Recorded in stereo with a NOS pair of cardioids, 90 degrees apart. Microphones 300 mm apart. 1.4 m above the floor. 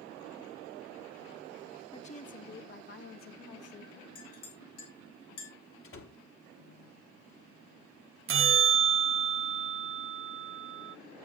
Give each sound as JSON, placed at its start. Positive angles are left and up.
{"t": 1.9, "sound": "a woman speaking", "azimuth_deg": 20, "distance_m": 2.5}
{"t": 4.2, "sound": "a clink", "azimuth_deg": 70, "distance_m": 5.5}
{"t": 5.8, "sound": "a door slam", "azimuth_deg": 45, "distance_m": 3.0}
{"t": 8.3, "sound": "a bell", "azimuth_deg": -45, "distance_m": 0.9}